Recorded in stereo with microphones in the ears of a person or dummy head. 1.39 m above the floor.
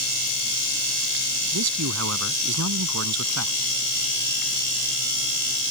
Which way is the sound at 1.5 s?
90° right.